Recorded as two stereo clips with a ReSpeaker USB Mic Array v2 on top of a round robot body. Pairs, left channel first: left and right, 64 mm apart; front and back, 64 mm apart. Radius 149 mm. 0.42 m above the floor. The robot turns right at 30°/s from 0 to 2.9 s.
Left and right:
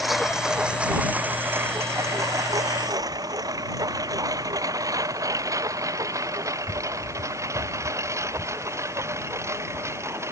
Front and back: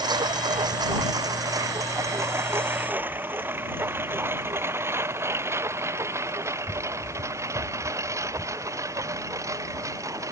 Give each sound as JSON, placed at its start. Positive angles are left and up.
{"t": 0.0, "sound": "a lawn mower", "azimuth_deg": 180}